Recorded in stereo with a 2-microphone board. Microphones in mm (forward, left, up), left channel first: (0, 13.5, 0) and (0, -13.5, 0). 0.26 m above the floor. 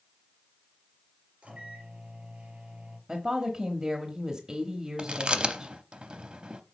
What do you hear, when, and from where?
1.4 s a microwave: 45° right (ahead or behind), 3 m
3.1 s a woman speaking: 25° right (ahead or behind), 1.0 m
5.0 s chewing: 40° right (ahead or behind), 0.6 m